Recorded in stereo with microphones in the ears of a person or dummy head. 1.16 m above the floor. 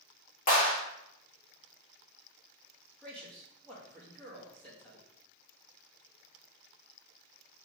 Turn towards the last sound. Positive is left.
turn(degrees=5)  # may be behind; listen again after turning